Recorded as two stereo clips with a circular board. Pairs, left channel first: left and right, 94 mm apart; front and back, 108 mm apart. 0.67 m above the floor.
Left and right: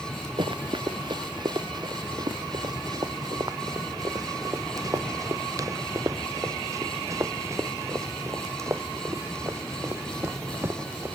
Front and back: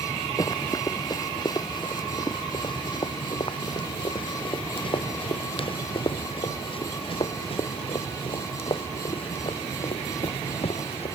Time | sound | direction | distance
0.4 | running footsteps | 55° right | ?